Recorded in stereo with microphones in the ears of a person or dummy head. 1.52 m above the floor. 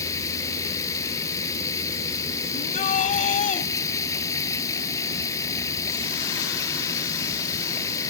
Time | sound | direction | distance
0.0 | running water | 20° left (ahead or behind) | ?
2.5 | a shout | 35° left (ahead or behind) | ?